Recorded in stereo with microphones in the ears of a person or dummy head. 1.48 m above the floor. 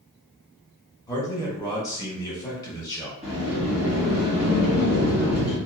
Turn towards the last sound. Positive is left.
turn(degrees=-5)  # may be behind; listen again after turning